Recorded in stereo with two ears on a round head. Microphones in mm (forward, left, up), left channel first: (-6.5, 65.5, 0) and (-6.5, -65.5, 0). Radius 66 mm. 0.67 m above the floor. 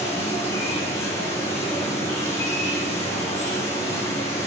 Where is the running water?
15° left (ahead or behind), 7.5 m.